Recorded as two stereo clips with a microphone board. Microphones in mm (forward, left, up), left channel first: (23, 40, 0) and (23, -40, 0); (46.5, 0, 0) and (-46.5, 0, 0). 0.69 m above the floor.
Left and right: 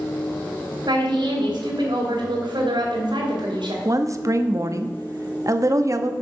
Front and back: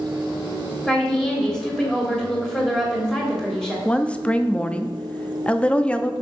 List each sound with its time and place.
0.9 s a woman speaking: 85° right, 2.5 m
3.9 s a woman speaking: 70° right, 0.6 m